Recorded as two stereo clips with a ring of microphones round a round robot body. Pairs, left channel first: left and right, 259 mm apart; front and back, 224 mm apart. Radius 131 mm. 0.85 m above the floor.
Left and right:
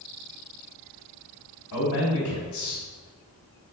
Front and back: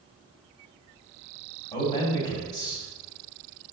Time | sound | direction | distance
1.7 | a man speaking | 60° left | 3 m